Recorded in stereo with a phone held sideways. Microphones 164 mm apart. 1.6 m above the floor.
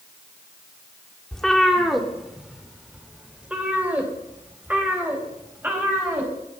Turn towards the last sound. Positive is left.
turn(degrees=-15)  # may be behind; listen again after turning